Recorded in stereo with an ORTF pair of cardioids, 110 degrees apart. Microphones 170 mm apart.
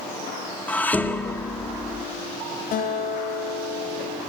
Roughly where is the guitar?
Ahead left.